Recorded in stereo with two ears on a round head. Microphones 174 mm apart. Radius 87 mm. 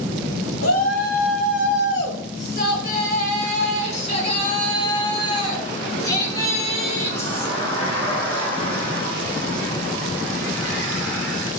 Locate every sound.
0.6 s a shout: 75° left (ahead or behind), 3.5 m; by 11.5 s 5° left (ahead or behind), 12 m